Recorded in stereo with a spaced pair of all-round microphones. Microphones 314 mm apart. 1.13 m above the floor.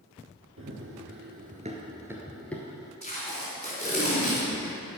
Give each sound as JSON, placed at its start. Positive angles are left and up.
{"t": 0.6, "sound": "running footsteps", "side_deg": -40, "distance_m": 1.6}
{"t": 3.0, "sound": "tape being pulled", "side_deg": 20, "distance_m": 3.5}